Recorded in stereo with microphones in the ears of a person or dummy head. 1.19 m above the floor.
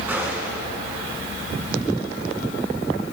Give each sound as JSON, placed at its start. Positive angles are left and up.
{"t": 0.1, "sound": "a gunshot", "side_deg": -10, "distance_m": 5.5}